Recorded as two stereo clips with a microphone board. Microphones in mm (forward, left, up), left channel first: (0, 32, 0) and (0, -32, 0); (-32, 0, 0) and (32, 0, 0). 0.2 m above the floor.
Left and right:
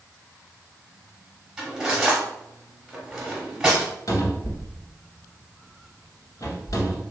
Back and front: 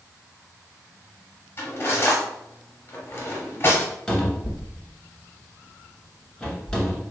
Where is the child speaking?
No child speaking in this recording.